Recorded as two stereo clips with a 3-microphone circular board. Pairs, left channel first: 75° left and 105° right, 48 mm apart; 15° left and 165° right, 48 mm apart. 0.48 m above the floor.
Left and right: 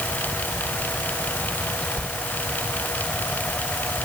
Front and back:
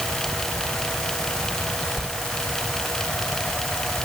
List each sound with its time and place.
2.0 s a sliding door: 125° left, 1.8 m